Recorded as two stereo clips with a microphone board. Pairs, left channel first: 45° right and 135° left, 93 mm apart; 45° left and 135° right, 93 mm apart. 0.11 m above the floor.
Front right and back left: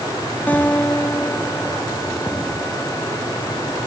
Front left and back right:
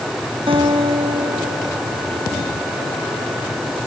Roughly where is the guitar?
Behind right.